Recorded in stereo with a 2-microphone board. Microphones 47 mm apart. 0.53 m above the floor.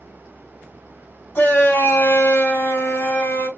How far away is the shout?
About 2.5 m.